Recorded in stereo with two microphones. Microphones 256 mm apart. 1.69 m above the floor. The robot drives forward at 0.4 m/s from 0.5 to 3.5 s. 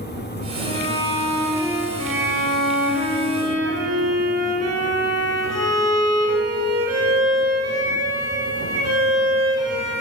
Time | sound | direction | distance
0.6 | a violin | 15° left (ahead or behind) | 4 m
2.0 | a violin | 60° right (ahead or behind) | 1.9 m